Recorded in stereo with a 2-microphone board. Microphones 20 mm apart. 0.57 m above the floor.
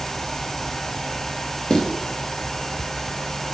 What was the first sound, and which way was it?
Footsteps, 40° left (ahead or behind).